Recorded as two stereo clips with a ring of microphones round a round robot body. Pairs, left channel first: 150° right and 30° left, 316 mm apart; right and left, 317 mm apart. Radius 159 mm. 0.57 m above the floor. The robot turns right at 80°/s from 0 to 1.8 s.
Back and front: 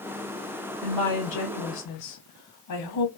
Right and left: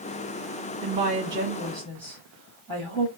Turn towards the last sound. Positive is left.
turn(degrees=-155)